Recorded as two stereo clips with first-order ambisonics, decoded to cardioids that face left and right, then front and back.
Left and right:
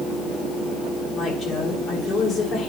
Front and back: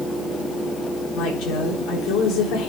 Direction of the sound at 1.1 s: 30° left.